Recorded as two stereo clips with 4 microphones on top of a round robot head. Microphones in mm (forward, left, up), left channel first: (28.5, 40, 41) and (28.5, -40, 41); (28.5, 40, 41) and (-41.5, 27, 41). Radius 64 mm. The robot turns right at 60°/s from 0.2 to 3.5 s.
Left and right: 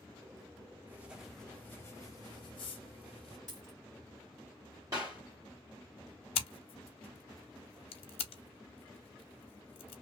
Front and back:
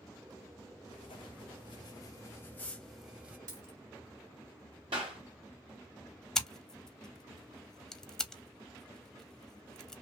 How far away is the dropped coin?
About 1.7 m.